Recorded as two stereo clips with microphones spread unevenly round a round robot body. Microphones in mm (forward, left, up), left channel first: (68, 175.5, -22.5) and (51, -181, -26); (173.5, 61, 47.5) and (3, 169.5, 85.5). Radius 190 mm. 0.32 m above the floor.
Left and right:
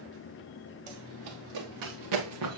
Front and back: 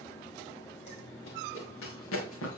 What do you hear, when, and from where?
0.9 s running footsteps: 85° right, 2.5 m; by 2.6 s 40° right, 1.9 m